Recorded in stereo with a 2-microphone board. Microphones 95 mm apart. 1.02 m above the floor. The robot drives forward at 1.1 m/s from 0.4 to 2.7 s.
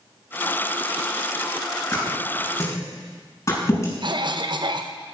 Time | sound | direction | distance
1.9 | a thud | 30° left (ahead or behind) | 6 m
4.0 | a cough | 55° right (ahead or behind) | 0.8 m